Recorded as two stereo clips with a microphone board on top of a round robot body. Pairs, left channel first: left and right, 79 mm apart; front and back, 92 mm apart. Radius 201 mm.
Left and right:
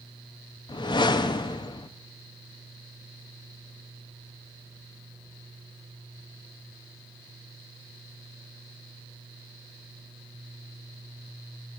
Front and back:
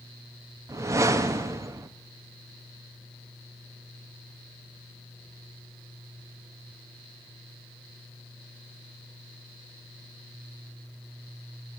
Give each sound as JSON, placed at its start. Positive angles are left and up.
{"t": 0.7, "sound": "a whoosh", "azimuth_deg": 120, "distance_m": 0.6}